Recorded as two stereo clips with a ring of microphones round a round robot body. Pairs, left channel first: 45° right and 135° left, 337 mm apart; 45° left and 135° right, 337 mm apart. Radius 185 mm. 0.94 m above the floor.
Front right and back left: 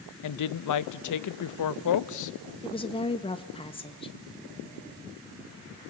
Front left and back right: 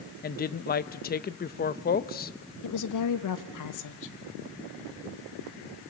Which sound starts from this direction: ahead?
A woman speaking, at 0.2 s.